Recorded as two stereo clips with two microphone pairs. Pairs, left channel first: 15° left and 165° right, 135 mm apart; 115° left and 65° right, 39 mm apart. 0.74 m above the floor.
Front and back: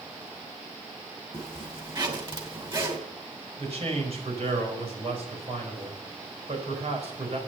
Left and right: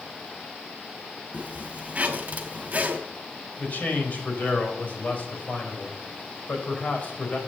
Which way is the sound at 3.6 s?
155° left.